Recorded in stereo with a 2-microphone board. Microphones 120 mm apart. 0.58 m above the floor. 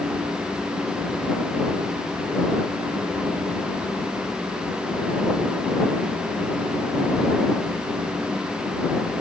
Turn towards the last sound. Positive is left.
No sound to turn to.